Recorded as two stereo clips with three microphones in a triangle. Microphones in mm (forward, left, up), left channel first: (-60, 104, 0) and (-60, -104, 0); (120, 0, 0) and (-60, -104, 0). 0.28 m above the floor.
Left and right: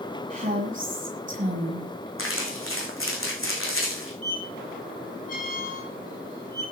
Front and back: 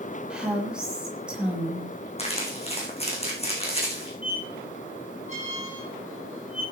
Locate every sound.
0.3 s a woman speaking: 65° right, 1.4 m
2.2 s crumpling: 90° left, 3.5 m
4.2 s a squeak: 40° left, 5.5 m